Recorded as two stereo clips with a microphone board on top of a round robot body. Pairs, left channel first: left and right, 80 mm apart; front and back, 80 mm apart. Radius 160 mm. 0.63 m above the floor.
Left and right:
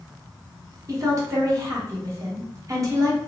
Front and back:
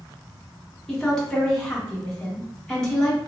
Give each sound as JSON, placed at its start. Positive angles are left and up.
{"t": 0.9, "sound": "a woman speaking", "azimuth_deg": -80, "distance_m": 1.5}